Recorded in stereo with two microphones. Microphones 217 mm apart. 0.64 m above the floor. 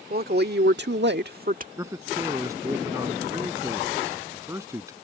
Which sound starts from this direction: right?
A woman speaking, at 0.1 s.